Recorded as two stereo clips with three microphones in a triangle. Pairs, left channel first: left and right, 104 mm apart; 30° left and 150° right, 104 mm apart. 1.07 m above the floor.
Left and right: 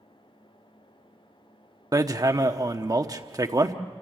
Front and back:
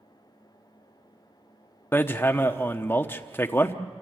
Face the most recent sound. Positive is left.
turn(degrees=-40)